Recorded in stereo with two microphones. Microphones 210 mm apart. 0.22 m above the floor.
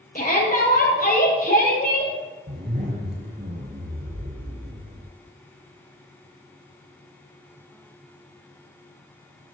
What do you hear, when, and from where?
0.1 s a shout: 40° left (ahead or behind), 5.5 m
2.5 s a zipper: 50° right (ahead or behind), 4.5 m